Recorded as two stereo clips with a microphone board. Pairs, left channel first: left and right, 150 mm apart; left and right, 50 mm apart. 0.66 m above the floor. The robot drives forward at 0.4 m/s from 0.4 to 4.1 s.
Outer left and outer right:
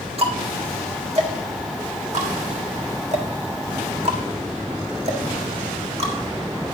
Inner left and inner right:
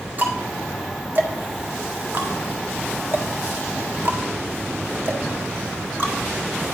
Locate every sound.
0.2 s ticking: 40° right (ahead or behind), 1.8 m; by 6.1 s 45° right (ahead or behind), 1.6 m